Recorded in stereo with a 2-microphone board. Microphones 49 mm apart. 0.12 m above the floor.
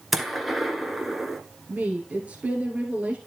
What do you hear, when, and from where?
0.1 s a gunshot: centre (ahead or behind), 1.2 m
1.7 s a woman speaking: 30° right (ahead or behind), 1.9 m